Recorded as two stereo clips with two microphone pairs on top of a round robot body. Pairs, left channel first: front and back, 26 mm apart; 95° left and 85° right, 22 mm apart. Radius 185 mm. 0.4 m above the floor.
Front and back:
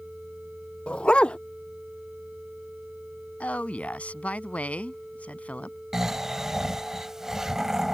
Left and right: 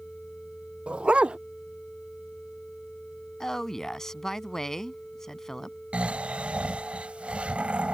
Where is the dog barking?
45° right.